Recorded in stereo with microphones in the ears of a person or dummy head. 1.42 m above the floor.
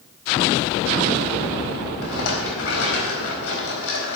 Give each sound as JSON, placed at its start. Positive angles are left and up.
{"t": 2.0, "sound": "a rattle", "side_deg": 80, "distance_m": 4.0}